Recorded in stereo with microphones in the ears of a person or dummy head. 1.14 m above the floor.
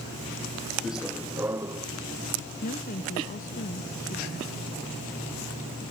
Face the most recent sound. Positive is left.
turn(degrees=45)  # may be behind; listen again after turning